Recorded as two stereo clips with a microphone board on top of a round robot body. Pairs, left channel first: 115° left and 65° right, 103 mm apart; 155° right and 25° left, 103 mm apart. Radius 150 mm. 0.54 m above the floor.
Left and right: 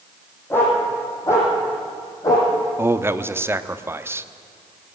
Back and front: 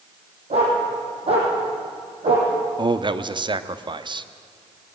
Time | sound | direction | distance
0.5 | a dog barking | 40° left | 6.5 m
2.8 | a man speaking | 5° right | 1.1 m